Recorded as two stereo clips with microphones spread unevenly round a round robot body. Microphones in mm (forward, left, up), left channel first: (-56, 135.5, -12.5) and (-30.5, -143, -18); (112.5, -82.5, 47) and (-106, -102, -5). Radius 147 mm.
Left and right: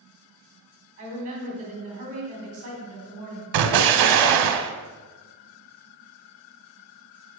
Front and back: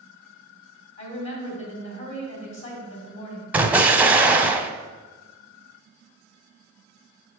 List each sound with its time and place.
1.0 s a woman speaking: 25° right, 2.5 m
3.5 s an explosion: 95° right, 0.6 m